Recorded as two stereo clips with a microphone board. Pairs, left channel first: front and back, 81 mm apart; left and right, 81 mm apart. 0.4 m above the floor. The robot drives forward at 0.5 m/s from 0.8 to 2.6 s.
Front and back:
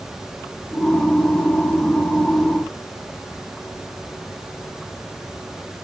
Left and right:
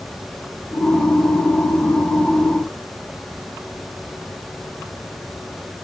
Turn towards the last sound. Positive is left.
No sound to turn to.